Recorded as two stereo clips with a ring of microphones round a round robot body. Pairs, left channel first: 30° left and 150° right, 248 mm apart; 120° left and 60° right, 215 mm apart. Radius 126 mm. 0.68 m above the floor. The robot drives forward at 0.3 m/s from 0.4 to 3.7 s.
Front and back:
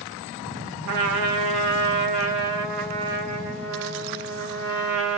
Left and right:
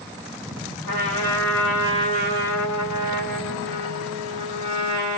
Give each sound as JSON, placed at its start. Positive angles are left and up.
{"t": 0.8, "sound": "a trumpet", "azimuth_deg": -165, "distance_m": 1.4}